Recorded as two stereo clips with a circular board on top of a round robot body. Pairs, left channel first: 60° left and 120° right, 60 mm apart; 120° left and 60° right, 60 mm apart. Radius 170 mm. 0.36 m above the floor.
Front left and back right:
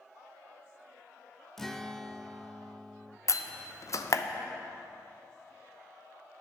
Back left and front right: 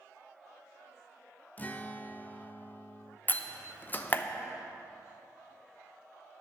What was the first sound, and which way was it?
A guitar, 140° left.